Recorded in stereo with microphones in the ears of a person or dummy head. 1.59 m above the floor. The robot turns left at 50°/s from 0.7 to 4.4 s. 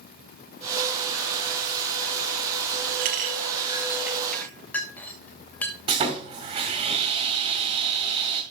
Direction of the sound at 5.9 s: 35° right (ahead or behind).